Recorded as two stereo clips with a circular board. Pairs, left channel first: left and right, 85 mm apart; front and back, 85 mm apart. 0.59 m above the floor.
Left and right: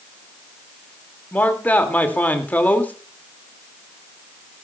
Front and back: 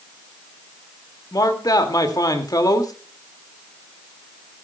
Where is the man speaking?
25° left, 1.9 m.